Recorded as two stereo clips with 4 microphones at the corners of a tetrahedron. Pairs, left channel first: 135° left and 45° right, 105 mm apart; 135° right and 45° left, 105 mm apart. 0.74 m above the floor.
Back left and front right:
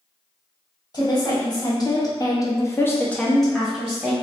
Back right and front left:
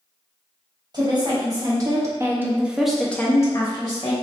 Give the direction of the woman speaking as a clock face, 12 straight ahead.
9 o'clock.